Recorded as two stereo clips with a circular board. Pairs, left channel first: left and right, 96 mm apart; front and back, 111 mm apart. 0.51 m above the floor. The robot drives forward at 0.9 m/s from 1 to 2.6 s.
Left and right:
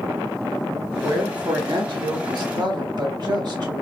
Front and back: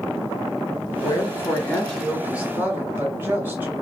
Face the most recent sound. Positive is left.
turn(degrees=-115)